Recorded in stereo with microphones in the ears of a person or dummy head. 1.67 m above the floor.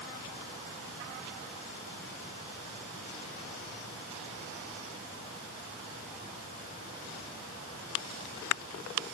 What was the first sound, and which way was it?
Only background noise.